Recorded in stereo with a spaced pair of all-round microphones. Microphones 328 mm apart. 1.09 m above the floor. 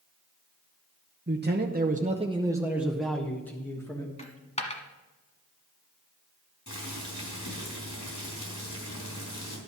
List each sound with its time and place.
1.3 s a man speaking: 35° right (ahead or behind), 0.8 m; by 4.1 s 10° left (ahead or behind), 1.6 m
4.2 s a dropped coin: 20° left (ahead or behind), 1.2 m
6.7 s boiling: 75° left (ahead or behind), 3.5 m